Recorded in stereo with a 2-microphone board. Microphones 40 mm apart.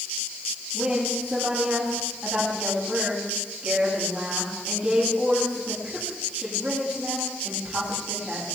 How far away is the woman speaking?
About 9 m.